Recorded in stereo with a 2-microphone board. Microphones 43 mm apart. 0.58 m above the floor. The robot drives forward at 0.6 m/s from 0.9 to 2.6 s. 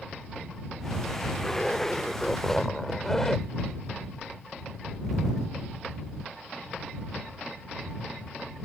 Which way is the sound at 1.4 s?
15° left (ahead or behind).